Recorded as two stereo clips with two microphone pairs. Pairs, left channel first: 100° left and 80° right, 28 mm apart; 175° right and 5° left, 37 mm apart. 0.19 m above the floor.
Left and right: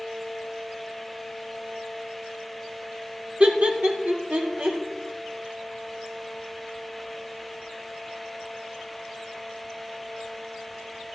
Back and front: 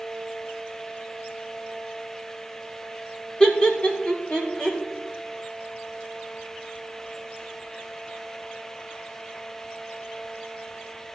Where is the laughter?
115° right, 1.9 m; by 4.8 s 110° right, 3.5 m.